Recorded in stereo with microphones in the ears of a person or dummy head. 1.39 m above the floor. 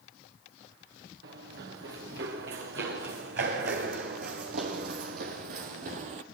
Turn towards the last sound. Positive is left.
turn(degrees=-40)  # may be behind; listen again after turning